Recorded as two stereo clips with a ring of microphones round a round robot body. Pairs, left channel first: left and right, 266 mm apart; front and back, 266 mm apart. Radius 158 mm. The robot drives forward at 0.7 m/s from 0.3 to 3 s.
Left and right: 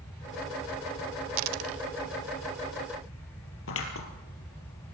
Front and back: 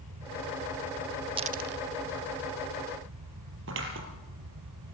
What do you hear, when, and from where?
1.4 s a dropped coin: 110° right, 0.5 m; by 1.8 s 135° right, 0.7 m
3.7 s scissors: 130° left, 4.5 m